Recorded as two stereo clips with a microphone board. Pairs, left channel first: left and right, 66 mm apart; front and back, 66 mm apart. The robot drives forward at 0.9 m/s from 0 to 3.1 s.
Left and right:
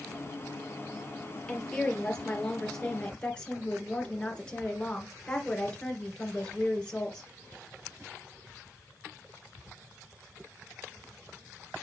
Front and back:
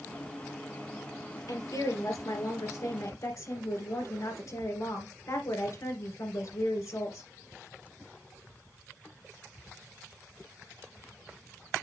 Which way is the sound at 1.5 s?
10° left.